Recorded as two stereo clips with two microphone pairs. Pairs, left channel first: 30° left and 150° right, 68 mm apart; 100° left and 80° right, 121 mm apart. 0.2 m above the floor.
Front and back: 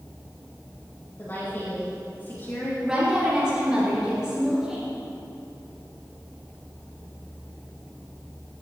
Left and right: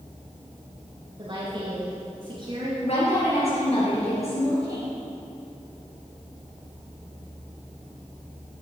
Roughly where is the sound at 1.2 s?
Ahead right.